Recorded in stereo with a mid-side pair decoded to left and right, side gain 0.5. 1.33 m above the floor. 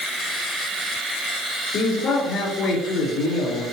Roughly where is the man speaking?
Ahead left.